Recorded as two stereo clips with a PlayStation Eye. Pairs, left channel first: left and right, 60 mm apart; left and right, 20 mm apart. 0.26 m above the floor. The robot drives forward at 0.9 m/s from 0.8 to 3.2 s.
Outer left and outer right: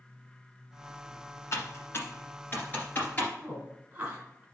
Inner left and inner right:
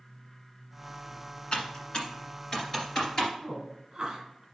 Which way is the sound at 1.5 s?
55° left (ahead or behind).